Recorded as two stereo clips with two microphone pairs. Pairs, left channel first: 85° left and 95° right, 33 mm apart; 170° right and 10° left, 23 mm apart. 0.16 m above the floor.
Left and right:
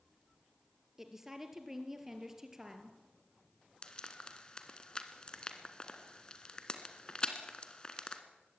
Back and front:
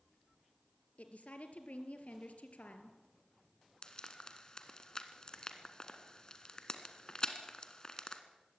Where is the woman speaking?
175° right, 2.5 m.